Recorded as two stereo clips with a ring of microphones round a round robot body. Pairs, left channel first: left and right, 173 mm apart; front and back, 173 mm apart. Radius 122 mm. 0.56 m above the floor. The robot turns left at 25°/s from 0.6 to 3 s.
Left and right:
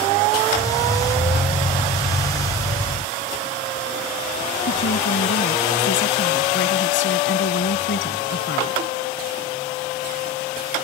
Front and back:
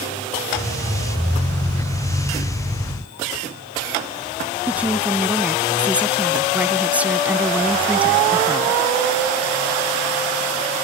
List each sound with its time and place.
4.7 s a woman speaking: 100° left